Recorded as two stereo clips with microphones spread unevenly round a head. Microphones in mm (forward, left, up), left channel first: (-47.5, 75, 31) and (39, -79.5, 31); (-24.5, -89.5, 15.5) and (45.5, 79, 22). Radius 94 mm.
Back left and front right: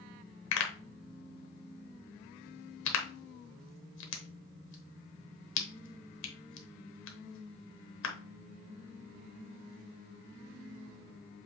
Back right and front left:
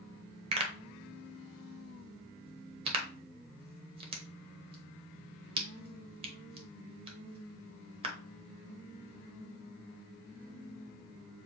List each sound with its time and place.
0.5 s a pop: 130° left, 1.0 m